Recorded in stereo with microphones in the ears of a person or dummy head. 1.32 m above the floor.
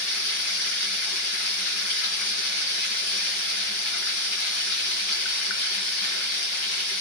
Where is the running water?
70° left (ahead or behind), 4 m.